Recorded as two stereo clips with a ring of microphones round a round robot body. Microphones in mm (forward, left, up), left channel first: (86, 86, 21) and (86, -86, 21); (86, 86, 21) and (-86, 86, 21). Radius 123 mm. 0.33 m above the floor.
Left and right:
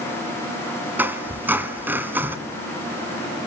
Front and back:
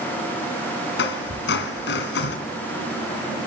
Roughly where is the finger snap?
No finger snap in this recording.